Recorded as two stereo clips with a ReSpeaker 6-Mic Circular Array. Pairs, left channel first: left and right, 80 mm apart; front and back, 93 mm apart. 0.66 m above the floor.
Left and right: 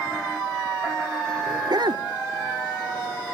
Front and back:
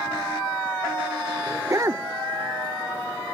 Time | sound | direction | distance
1.5 | a dog barking | 120° right | ?